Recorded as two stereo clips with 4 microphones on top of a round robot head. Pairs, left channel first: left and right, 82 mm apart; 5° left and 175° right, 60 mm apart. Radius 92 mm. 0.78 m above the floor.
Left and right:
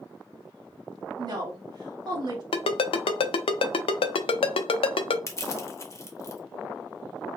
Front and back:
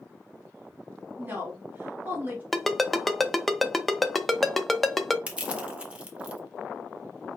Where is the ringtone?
95° left, 0.6 m.